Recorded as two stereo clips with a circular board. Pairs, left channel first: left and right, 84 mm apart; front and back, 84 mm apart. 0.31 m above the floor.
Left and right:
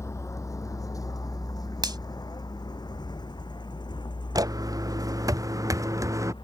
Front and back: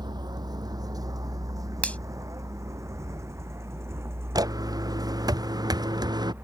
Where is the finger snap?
70° right.